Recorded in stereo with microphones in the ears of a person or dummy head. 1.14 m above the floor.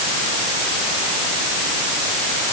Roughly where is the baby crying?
I don't hear a baby crying.